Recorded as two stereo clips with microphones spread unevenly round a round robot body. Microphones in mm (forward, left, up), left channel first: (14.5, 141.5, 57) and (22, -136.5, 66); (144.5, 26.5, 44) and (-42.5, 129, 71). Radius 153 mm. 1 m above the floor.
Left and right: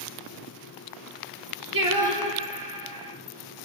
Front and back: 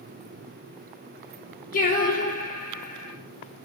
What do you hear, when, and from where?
1.7 s singing: 80° right, 3.5 m